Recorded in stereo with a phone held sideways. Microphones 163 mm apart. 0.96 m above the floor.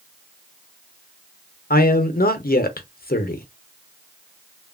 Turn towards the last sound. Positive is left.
turn(degrees=65)  # may be behind; listen again after turning